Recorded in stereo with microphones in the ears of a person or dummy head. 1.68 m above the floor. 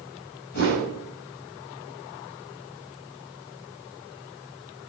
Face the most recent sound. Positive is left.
turn(degrees=50)  # may be behind; listen again after turning